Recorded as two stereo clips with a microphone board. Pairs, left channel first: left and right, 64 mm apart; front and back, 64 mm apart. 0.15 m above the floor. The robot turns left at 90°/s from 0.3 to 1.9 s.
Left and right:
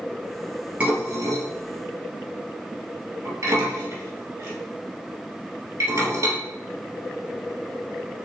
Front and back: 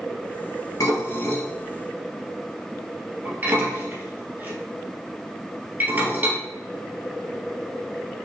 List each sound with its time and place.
0.8 s dishes clattering: 20° right, 2 m; by 6.4 s 120° right, 2 m